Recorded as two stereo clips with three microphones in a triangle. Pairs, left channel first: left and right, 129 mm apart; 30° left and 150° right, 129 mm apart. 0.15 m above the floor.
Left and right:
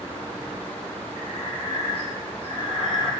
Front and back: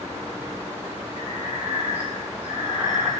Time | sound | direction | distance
1.1 | breathing | 135° left | 1.4 m